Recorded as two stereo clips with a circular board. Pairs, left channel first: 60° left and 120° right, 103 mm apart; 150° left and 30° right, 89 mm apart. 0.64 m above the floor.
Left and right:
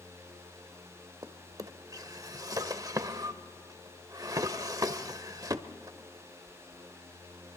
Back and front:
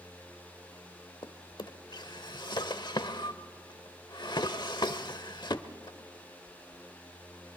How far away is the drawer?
About 0.9 m.